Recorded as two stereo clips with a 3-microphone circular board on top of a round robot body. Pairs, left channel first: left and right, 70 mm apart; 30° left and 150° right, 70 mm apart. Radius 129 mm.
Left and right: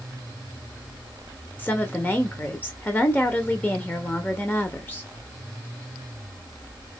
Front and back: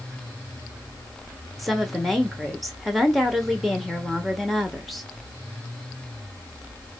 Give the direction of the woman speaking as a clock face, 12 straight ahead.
8 o'clock.